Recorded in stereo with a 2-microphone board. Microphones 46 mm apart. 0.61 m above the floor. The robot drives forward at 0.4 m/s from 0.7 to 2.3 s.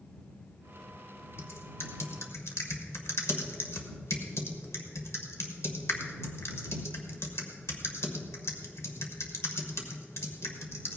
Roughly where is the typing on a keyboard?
Left.